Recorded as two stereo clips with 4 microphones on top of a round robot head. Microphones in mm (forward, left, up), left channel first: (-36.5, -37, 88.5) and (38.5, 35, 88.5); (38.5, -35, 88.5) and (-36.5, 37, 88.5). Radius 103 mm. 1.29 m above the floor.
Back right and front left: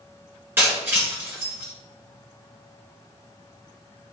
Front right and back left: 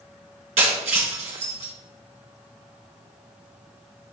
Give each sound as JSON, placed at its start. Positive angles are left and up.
{"t": 0.6, "sound": "breaking glass", "azimuth_deg": 115, "distance_m": 2.0}